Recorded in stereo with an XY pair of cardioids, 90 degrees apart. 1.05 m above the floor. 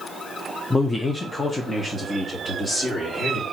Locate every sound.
0.7 s a man speaking: 25° left, 0.6 m; by 3.4 s 45° left, 2.5 m